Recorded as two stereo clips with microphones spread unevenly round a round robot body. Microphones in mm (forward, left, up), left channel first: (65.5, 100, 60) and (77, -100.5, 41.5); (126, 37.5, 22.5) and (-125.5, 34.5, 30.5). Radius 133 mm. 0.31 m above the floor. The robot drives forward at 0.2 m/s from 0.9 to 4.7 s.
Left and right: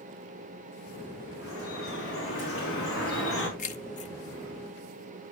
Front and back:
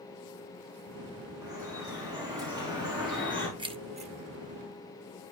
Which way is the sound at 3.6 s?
120° left.